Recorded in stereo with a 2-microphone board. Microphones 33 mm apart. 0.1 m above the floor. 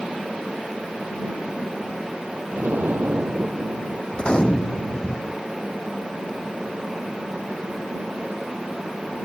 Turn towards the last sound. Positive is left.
turn(degrees=30)  # may be behind; listen again after turning